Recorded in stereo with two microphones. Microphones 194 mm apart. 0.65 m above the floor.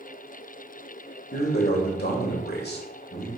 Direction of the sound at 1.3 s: 60° left (ahead or behind).